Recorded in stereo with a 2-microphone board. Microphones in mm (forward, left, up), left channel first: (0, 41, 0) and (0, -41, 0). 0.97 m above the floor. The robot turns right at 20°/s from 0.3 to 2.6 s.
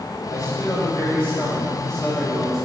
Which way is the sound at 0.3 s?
140° left.